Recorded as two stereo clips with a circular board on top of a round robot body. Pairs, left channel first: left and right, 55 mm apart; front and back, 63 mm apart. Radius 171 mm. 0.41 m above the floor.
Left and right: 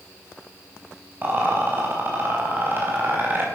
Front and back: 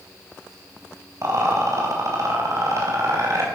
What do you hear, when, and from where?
1.2 s a rattle: 140° right, 4.5 m